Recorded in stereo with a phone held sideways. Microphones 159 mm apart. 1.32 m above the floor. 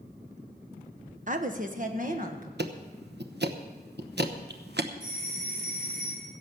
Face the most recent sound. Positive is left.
turn(degrees=-55)  # may be behind; listen again after turning